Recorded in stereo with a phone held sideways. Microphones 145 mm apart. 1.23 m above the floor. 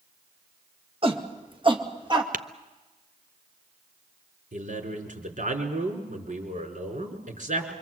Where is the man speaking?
65° right (ahead or behind), 5 m.